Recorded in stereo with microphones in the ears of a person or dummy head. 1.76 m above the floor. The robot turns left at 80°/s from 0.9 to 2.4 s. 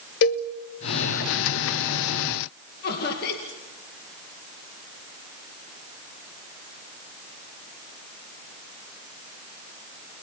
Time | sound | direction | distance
0.2 | a cowbell | 40° left (ahead or behind) | 1.1 m
2.8 | laughter | 50° left (ahead or behind) | 2.5 m